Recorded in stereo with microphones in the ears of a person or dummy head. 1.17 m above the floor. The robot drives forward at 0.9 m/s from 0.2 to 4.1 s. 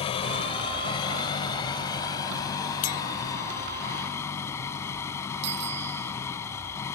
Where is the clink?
40° left (ahead or behind); by 3.0 s 45° left (ahead or behind).